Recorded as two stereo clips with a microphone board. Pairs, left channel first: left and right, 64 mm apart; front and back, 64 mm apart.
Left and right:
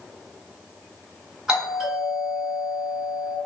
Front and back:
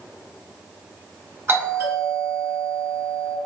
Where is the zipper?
No zipper in this recording.